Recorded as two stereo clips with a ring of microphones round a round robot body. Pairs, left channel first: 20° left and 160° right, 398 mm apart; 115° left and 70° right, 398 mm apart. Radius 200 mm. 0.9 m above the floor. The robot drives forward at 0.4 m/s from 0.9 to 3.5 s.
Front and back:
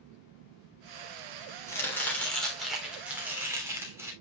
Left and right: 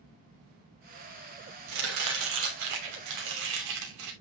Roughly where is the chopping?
Ahead right.